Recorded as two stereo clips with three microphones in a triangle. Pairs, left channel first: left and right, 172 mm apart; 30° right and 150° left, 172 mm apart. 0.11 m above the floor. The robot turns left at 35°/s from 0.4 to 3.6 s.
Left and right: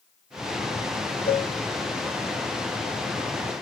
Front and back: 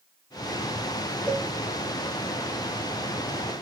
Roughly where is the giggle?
No giggle in this recording.